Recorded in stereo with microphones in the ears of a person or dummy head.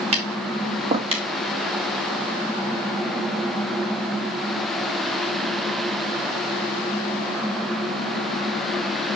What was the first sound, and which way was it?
Tapping, 35° right (ahead or behind).